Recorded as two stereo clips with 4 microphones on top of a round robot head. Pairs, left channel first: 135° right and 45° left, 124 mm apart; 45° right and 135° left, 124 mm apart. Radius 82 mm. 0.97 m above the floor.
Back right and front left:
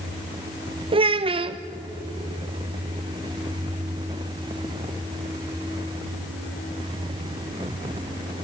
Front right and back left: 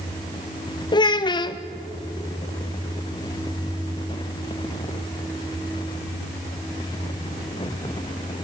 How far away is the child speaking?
About 0.6 m.